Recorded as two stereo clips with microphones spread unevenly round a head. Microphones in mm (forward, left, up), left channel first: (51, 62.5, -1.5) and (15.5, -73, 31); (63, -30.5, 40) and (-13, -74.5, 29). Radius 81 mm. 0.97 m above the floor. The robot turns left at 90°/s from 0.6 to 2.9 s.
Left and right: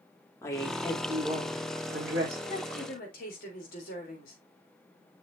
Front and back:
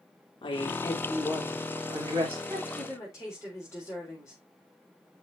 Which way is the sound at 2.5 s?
135° left.